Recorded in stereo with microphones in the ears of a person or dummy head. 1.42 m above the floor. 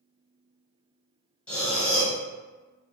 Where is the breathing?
5° left (ahead or behind), 1.4 m.